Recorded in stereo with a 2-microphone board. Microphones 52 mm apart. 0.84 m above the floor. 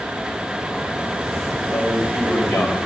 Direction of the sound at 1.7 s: 30° left (ahead or behind).